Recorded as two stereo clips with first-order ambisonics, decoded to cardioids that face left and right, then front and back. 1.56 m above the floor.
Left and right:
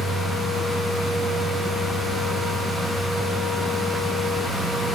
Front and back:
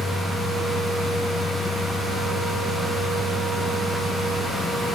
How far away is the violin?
I don't hear a violin.